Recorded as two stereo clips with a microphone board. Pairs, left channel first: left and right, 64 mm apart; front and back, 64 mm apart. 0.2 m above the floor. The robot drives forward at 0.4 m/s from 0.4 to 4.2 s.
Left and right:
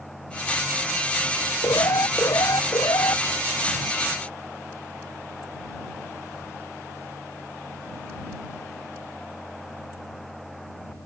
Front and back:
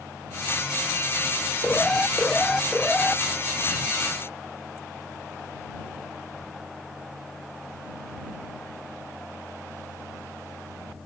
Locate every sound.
1.6 s an alarm: 75° left